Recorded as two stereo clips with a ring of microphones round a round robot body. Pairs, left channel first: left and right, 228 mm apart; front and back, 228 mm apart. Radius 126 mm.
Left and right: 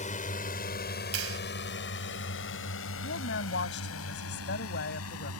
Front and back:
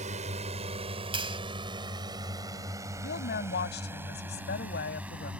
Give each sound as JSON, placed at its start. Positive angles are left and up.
{"t": 0.0, "sound": "a drone", "azimuth_deg": 130}
{"t": 1.1, "sound": "a clap", "azimuth_deg": -115}
{"t": 3.0, "sound": "a woman speaking", "azimuth_deg": 45}